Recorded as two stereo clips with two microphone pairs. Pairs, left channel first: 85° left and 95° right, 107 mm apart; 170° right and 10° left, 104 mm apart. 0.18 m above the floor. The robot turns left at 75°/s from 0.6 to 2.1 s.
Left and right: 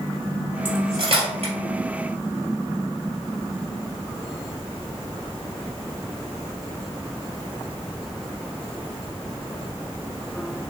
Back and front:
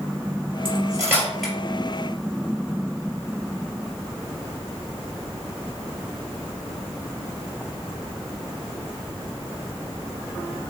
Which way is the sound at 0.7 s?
25° right.